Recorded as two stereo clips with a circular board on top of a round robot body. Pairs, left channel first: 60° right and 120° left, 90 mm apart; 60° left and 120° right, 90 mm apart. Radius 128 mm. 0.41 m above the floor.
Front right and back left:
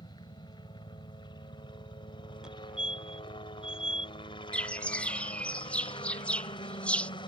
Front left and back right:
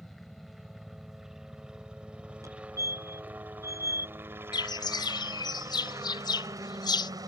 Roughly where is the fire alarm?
Behind.